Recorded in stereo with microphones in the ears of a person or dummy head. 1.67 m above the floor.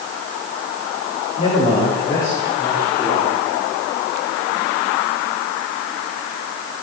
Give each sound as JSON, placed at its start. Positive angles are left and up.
{"t": 1.4, "sound": "a man speaking", "side_deg": 40, "distance_m": 3.0}